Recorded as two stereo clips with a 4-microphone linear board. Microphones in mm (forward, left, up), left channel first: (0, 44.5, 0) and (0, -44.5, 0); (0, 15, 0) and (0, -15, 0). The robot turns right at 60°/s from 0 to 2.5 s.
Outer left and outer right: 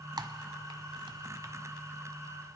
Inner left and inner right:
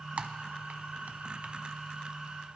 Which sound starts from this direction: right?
Typing on a keyboard, at 0.2 s.